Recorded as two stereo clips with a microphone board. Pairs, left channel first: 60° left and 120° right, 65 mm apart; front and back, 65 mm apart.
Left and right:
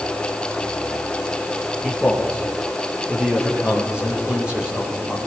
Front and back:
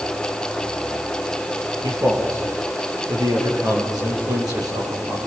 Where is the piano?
I don't hear a piano.